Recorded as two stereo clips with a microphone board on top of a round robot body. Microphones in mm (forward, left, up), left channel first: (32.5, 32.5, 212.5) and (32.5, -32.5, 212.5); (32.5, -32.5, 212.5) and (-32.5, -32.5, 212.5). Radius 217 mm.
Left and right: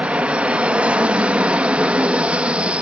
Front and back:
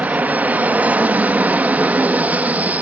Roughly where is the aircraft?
Behind right.